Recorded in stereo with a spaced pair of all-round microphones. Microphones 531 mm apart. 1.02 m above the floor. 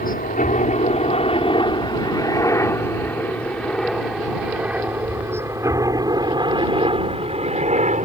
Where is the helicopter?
15° left (ahead or behind); by 8.1 s 15° right (ahead or behind).